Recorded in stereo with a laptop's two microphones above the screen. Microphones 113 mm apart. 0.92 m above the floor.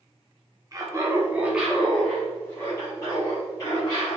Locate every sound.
0.7 s laughter: 30° right (ahead or behind), 0.8 m; by 4.2 s 35° left (ahead or behind), 1.6 m